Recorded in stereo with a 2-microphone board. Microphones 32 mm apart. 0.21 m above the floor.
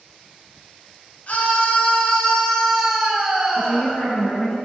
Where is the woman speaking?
40° left (ahead or behind), 2 m.